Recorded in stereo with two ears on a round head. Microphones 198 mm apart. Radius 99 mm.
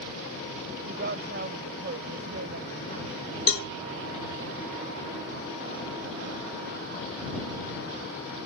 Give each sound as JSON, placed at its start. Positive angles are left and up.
{"t": 0.8, "sound": "a woman speaking", "side_deg": -45}
{"t": 3.5, "sound": "a cowbell", "side_deg": 65}